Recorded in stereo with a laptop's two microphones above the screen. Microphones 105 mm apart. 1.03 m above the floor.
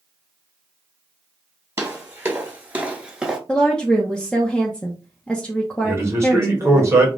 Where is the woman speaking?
5° left (ahead or behind), 0.6 m.